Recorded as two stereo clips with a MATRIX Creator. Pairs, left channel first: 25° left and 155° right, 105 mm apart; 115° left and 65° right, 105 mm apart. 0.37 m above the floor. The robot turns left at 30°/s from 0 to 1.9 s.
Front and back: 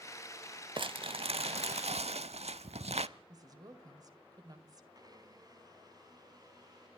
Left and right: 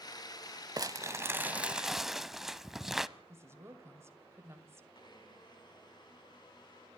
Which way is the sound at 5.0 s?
155° left.